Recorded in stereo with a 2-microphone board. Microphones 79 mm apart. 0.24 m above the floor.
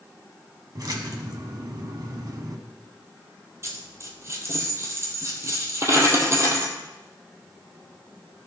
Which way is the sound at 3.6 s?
35° right (ahead or behind).